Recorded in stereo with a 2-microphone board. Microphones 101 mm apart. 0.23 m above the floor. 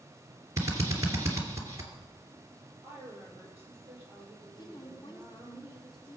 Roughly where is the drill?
Right.